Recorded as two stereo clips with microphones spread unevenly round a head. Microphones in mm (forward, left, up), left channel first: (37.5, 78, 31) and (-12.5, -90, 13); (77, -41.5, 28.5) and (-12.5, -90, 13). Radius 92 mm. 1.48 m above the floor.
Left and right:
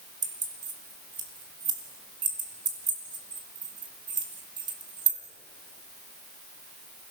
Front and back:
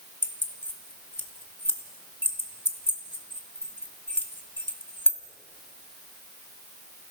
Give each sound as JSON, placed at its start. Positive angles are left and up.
{"t": 0.2, "sound": "keys jangling", "azimuth_deg": -40, "distance_m": 2.5}